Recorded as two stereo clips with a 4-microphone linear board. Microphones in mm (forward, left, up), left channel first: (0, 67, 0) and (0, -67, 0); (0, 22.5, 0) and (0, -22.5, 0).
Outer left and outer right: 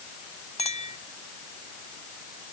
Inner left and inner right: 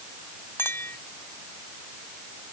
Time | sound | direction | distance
0.6 | a clink | 55° left (ahead or behind) | ?